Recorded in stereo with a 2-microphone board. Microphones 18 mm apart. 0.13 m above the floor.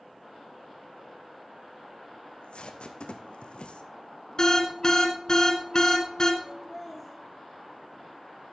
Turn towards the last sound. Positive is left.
turn(degrees=-5)  # may be behind; listen again after turning